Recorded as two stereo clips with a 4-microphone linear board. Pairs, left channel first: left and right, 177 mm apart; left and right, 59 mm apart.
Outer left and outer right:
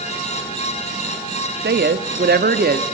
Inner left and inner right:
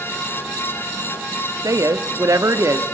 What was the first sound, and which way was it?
A woman speaking, 70° right (ahead or behind).